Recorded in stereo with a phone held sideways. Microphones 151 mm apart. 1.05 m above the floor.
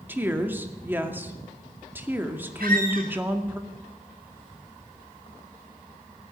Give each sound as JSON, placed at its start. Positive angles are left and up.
{"t": 0.1, "sound": "a woman speaking", "side_deg": -15, "distance_m": 2.0}
{"t": 2.6, "sound": "a squeak", "side_deg": -75, "distance_m": 5.0}